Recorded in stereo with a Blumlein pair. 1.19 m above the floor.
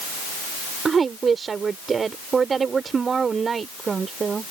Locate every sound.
0.8 s a woman speaking: 20° right